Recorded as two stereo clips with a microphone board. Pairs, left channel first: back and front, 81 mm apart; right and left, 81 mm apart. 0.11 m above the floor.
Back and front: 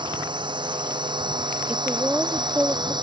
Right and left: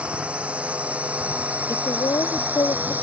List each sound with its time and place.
0.0 s a drone: 15° left; by 3.0 s 20° left
1.7 s a woman speaking: 75° right